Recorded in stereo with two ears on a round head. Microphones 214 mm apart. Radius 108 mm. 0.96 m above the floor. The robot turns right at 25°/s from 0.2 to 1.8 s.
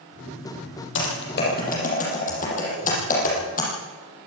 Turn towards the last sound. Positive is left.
turn(degrees=35)  # may be behind; listen again after turning